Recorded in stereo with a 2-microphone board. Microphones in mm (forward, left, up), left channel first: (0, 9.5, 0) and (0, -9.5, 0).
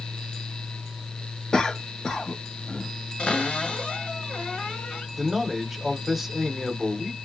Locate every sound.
1.5 s a cough: 40° left (ahead or behind), 1.2 m
3.2 s a cupboard door: 60° left (ahead or behind), 2.5 m
5.2 s a man speaking: 10° right (ahead or behind), 1.1 m